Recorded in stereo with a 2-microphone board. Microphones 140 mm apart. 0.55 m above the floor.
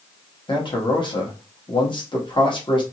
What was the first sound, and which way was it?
A man speaking, 35° left (ahead or behind).